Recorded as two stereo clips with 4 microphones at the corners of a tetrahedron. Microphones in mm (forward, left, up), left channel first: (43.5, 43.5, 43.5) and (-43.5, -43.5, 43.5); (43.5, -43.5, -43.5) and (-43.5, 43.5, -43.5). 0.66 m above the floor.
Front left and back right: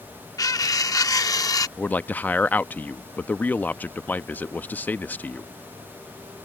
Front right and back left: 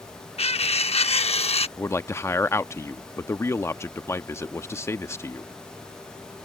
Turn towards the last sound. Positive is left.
turn(degrees=-15)